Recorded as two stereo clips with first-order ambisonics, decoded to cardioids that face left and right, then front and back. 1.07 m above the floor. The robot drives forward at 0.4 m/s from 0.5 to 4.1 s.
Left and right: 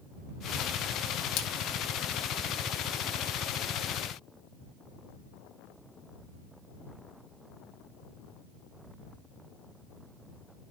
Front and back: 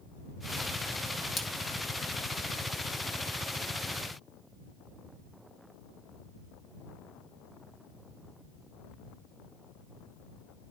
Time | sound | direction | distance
1.4 | a splash | 75° left | 1.5 m